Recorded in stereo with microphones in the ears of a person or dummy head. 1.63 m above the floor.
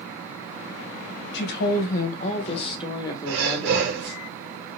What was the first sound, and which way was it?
A woman speaking, 65° left (ahead or behind).